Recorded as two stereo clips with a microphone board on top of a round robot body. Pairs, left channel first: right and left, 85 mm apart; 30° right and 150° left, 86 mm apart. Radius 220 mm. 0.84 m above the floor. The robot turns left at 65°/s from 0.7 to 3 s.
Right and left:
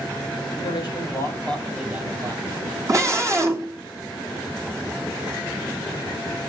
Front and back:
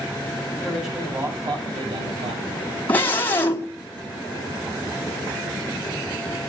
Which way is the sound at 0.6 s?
115° right.